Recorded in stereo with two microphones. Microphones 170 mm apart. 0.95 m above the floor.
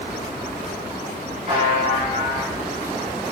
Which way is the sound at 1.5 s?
45° right (ahead or behind).